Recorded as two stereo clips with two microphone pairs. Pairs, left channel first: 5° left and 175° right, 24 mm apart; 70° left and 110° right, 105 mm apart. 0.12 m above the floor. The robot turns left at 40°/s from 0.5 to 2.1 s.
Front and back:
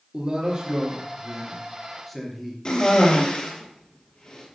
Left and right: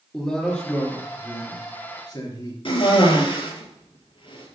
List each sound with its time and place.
0.1 s a man speaking: 150° left, 2.5 m; by 2.5 s 85° left, 2.5 m
2.6 s a cough: 55° left, 3 m